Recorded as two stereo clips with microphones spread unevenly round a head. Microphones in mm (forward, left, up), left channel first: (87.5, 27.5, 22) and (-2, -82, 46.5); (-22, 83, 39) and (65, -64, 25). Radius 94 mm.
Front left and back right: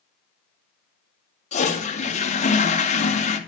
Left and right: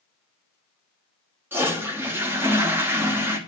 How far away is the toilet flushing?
About 2 m.